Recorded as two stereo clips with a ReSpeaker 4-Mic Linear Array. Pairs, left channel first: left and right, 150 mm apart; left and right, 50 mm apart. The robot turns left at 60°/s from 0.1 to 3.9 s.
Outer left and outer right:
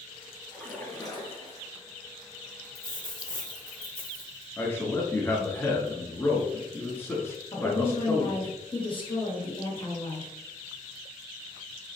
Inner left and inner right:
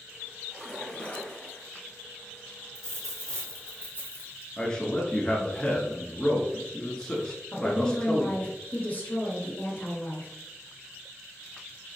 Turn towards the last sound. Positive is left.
turn(degrees=35)  # may be behind; listen again after turning